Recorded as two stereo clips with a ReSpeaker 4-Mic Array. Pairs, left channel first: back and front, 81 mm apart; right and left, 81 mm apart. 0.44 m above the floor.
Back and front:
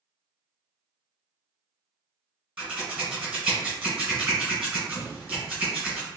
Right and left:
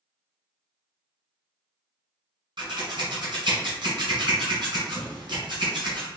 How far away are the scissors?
About 1.8 m.